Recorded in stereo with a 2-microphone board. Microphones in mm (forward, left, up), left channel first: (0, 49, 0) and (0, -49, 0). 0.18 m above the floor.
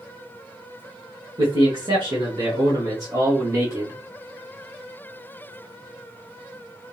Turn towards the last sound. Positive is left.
turn(degrees=-30)  # may be behind; listen again after turning